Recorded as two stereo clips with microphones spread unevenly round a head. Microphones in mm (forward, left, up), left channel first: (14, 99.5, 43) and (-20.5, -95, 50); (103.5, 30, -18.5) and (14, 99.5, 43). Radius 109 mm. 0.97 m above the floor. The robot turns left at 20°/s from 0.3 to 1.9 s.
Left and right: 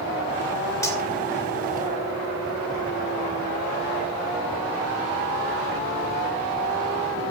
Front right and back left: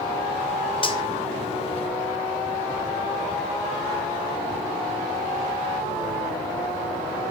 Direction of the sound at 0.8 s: 5° left.